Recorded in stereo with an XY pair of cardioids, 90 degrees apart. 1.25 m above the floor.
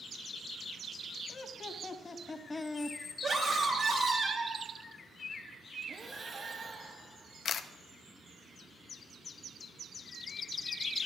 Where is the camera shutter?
65° left, 0.6 m.